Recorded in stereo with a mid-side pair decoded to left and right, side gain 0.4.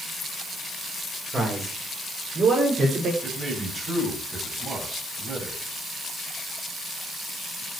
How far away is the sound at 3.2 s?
About 9.5 m.